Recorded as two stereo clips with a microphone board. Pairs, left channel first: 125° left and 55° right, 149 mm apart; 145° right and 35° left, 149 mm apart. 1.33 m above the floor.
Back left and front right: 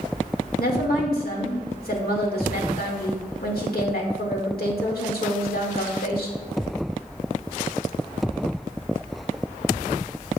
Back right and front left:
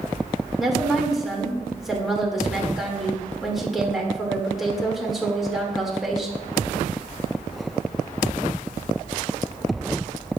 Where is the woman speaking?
120° left, 1.9 m.